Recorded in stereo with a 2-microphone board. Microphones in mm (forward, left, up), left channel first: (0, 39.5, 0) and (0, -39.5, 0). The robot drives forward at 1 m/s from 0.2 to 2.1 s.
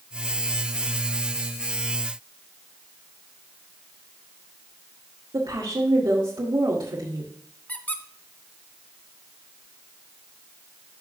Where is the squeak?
20° left (ahead or behind), 1.0 m.